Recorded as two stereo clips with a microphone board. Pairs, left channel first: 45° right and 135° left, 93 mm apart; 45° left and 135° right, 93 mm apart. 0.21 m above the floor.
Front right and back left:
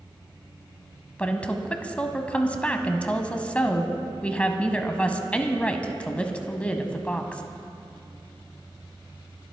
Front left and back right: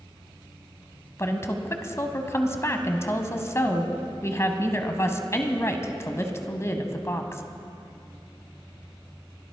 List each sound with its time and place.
1.2 s a woman speaking: 20° left, 1.1 m